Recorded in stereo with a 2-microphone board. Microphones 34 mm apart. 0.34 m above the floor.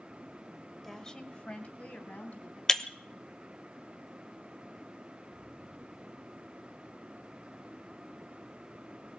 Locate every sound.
0.8 s a woman speaking: 10° left (ahead or behind), 1.2 m; by 2.6 s 55° left (ahead or behind), 3 m
2.7 s breaking glass: 20° left (ahead or behind), 0.8 m